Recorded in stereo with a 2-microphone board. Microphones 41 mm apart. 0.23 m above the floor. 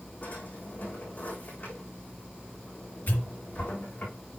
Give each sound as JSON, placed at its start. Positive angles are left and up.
{"t": 0.2, "sound": "a drawer", "side_deg": 45, "distance_m": 4.0}
{"t": 3.1, "sound": "a pop", "side_deg": 50, "distance_m": 4.0}